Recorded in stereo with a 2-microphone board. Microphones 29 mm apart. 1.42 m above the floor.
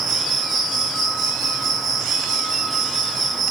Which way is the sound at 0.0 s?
5° left (ahead or behind).